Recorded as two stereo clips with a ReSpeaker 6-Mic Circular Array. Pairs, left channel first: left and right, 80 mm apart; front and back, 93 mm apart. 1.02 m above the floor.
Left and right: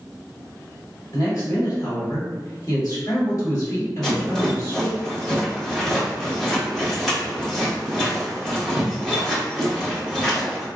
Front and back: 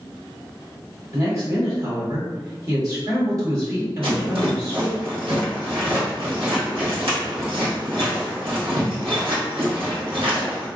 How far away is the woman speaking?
About 2.0 m.